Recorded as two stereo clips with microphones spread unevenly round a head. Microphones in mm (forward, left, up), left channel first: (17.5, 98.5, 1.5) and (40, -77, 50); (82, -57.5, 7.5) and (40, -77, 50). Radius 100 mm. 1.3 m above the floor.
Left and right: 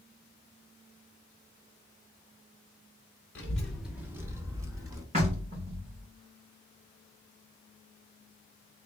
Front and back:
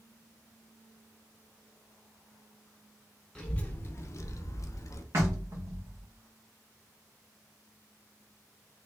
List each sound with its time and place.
3.4 s a child speaking: 165° right, 0.7 m; by 5.0 s 20° right, 1.3 m
5.1 s knocking: 140° right, 1.4 m